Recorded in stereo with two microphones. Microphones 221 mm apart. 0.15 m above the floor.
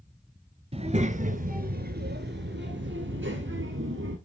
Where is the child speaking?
30° right (ahead or behind), 1.3 m; by 4.2 s 65° right (ahead or behind), 1.9 m.